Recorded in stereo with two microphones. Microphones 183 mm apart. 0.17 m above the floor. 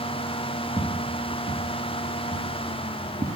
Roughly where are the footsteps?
Centre.